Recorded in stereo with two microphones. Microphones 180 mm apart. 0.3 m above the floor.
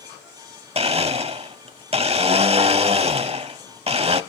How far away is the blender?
About 0.7 m.